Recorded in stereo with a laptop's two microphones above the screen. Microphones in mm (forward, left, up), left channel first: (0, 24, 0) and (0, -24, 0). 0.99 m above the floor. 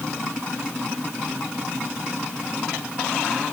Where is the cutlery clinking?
No cutlery clinking in this recording.